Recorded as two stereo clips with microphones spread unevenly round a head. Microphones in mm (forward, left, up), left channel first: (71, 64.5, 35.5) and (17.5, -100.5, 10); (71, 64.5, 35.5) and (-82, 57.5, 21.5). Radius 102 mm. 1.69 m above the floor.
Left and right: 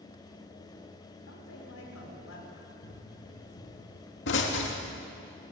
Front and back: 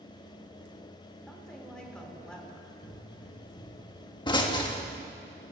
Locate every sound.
1.3 s a woman speaking: 85° left, 6 m
2.8 s a pop: 65° left, 3 m